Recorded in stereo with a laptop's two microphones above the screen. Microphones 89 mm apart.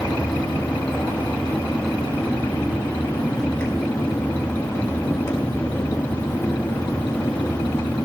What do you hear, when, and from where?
0.0 s a fan: 30° left (ahead or behind), 2.0 m